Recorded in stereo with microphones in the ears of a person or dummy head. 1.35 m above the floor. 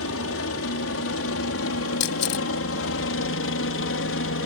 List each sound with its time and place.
0.0 s a helicopter: 70° left (ahead or behind); by 4.5 s 60° left (ahead or behind)
2.0 s a camera shutter: 60° left (ahead or behind)